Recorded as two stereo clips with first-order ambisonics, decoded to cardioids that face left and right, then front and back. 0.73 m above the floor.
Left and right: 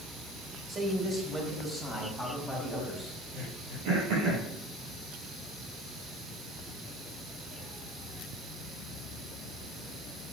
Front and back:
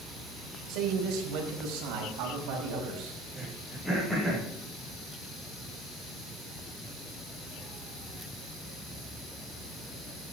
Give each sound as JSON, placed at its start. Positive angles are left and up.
{"t": 0.7, "sound": "a man speaking", "azimuth_deg": -160, "distance_m": 4.0}
{"t": 3.3, "sound": "throat clearing", "azimuth_deg": -85, "distance_m": 6.0}